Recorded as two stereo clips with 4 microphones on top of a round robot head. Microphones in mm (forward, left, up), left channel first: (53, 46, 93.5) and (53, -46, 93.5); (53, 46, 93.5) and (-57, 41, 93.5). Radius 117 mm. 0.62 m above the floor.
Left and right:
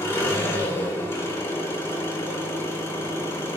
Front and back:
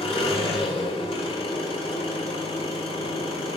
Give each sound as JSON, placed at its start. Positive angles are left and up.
{"t": 0.0, "sound": "an engine running", "azimuth_deg": 30, "distance_m": 3.0}